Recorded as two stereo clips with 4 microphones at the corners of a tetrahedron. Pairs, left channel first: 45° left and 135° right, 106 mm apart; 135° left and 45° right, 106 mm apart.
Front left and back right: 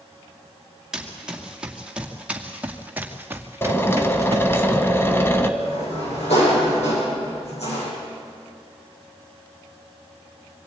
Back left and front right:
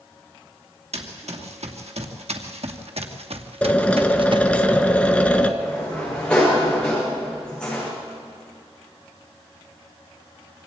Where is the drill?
75° left, 1.4 m.